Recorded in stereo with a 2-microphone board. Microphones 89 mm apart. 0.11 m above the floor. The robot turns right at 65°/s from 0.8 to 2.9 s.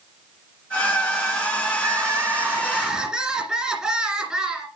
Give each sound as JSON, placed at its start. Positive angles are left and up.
{"t": 1.8, "sound": "crying", "side_deg": -30, "distance_m": 1.9}